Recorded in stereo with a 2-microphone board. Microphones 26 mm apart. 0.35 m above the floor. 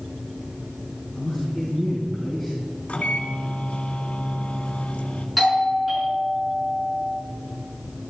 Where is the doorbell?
Centre (ahead or behind), 6 m.